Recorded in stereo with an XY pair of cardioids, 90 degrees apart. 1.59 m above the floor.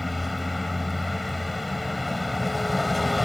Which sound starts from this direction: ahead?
A vehicle, at 0.0 s.